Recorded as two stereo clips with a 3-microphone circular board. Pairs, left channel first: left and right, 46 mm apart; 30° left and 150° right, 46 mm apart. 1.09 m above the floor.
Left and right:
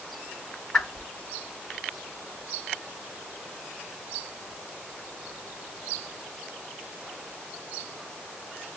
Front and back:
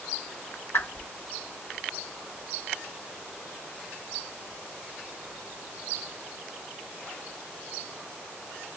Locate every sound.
0.7 s a whoosh: 15° left, 2.5 m